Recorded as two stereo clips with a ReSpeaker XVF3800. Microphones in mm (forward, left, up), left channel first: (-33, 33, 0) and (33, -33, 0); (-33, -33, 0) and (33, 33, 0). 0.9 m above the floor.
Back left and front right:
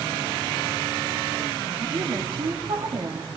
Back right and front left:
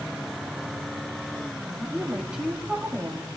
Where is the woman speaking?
35° right, 2 m.